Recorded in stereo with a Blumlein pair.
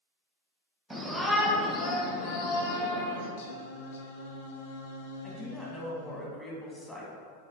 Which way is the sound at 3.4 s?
60° left.